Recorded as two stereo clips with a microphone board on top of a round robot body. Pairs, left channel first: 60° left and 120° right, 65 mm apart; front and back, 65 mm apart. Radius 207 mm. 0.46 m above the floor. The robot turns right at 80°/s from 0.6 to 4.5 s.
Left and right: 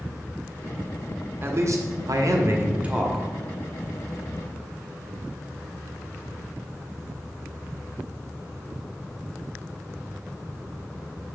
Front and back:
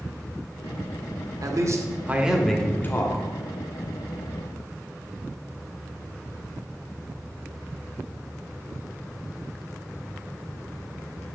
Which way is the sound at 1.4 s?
170° right.